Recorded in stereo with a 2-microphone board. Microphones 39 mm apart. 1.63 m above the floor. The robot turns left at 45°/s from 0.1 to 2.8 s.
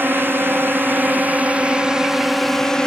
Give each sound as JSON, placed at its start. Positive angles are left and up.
{"t": 0.0, "sound": "a drone", "side_deg": -65}